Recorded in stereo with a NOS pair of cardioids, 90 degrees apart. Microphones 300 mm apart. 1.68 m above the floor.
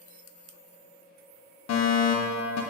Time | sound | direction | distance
1.7 | a fire alarm | 65° left | 2 m